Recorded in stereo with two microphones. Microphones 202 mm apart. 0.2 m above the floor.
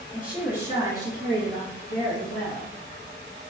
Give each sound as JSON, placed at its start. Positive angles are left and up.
{"t": 0.1, "sound": "a woman speaking", "side_deg": -5, "distance_m": 1.5}